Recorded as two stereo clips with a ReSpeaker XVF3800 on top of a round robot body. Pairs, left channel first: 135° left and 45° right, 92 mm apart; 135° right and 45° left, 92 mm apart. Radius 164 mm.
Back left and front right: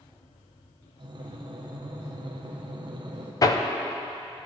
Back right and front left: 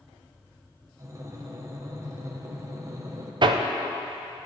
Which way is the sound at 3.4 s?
85° left.